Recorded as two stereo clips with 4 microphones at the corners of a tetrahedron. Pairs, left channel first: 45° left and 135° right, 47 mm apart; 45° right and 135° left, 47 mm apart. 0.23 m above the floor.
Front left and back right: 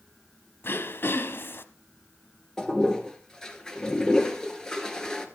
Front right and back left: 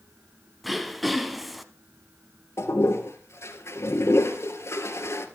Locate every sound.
0.6 s throat clearing: 50° left, 0.9 m
2.6 s a toilet flushing: 30° right, 1.6 m